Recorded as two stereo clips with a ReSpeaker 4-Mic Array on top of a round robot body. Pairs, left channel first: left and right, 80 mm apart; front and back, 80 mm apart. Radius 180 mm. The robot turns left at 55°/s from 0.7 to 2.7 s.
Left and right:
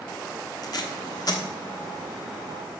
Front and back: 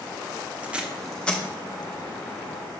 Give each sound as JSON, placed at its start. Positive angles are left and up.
{"t": 0.6, "sound": "tape being pulled", "azimuth_deg": 110, "distance_m": 1.2}